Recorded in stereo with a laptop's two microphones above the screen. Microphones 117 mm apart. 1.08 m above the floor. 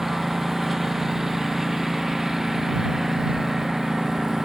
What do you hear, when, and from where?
0.0 s a lawn mower: 5° right (ahead or behind)